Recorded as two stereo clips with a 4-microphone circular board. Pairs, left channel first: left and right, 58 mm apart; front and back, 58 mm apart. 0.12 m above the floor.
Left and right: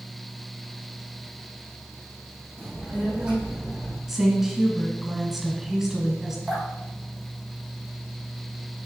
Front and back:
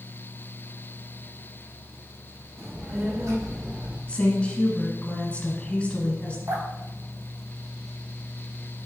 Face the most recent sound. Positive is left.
turn(degrees=-175)